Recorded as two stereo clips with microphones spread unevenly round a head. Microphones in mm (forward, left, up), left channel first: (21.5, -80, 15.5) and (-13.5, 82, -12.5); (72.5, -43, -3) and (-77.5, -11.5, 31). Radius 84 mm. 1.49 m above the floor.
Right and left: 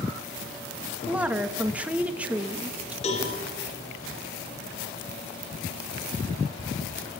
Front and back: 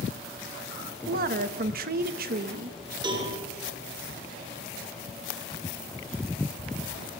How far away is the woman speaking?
About 1.5 m.